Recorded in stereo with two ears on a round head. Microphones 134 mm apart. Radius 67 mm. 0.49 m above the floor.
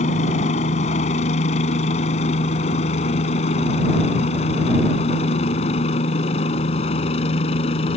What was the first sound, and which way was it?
A helicopter, 50° left (ahead or behind).